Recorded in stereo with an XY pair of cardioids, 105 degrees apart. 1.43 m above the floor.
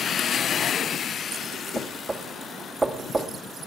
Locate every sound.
1.8 s knocking: 25° right, 1.6 m